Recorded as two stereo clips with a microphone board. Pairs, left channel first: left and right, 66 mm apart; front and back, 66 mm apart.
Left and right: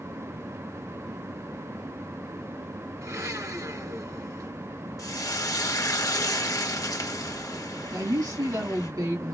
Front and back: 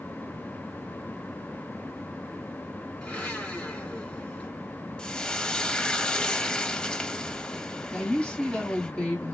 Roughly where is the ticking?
I don't hear ticking.